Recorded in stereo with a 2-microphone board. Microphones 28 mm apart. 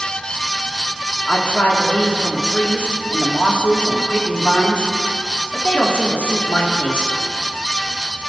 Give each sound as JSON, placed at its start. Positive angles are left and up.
{"t": 1.3, "sound": "a woman speaking", "side_deg": 85, "distance_m": 2.0}